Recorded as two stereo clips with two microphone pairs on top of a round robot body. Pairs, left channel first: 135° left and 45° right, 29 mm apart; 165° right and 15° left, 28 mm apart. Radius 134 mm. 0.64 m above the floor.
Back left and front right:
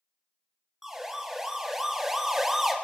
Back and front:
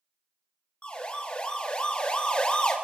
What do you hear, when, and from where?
0.8 s a siren: 120° right, 6.5 m